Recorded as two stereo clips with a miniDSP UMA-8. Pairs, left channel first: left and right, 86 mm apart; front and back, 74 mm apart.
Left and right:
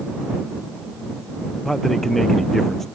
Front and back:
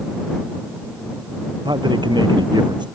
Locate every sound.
1.6 s a man speaking: 175° left